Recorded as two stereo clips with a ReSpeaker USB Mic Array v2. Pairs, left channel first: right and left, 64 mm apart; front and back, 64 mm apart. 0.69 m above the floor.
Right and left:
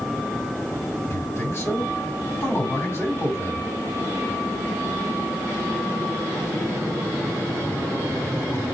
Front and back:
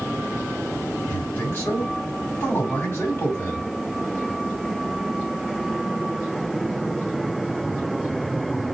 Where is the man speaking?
50° right, 2 m.